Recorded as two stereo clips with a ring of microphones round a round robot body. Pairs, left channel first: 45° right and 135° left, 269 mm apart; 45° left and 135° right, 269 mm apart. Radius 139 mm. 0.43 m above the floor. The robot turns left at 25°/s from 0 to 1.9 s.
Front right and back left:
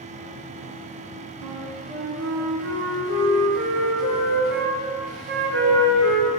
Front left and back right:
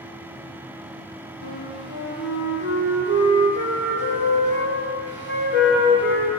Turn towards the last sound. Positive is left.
turn(degrees=95)